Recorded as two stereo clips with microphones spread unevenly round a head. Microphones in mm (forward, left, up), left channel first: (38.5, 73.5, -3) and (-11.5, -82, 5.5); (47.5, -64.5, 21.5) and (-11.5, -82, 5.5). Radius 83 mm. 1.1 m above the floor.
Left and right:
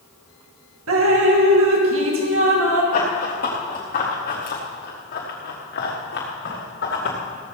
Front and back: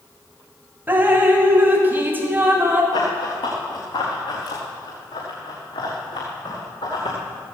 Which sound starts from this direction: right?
Dripping, at 0.9 s.